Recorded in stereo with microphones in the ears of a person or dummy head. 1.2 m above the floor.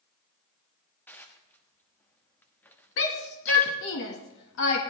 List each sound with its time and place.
1.1 s dishes clattering: 10° left (ahead or behind), 1.2 m
3.0 s a shout: 65° left (ahead or behind), 1.6 m